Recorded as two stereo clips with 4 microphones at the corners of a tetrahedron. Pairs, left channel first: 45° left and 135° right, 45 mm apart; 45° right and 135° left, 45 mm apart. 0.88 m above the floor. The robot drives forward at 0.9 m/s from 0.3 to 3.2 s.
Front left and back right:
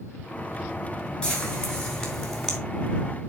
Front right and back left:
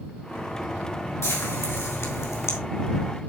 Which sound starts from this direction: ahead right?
Frying, at 1.2 s.